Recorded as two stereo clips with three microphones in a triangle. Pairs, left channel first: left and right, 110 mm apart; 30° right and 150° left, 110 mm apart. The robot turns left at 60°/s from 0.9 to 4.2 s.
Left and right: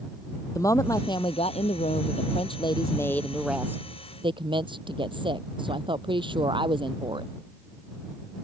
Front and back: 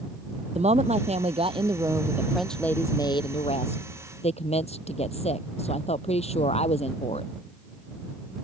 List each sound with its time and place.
0.6 s a woman speaking: 150° left; by 7.3 s 50° right